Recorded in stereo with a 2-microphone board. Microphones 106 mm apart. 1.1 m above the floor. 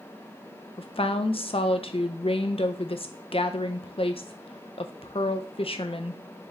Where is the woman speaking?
60° left (ahead or behind), 0.5 m.